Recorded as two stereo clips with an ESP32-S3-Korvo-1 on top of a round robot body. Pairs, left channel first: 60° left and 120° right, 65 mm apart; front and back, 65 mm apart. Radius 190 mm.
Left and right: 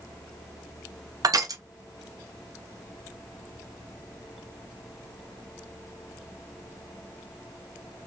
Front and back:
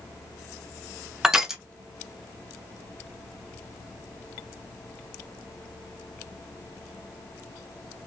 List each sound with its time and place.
1.2 s crushing: 100° right, 0.6 m